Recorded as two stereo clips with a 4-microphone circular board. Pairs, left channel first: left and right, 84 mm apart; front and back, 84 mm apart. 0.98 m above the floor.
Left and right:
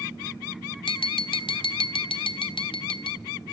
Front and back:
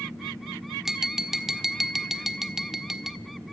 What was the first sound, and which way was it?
Tapping, 95° left.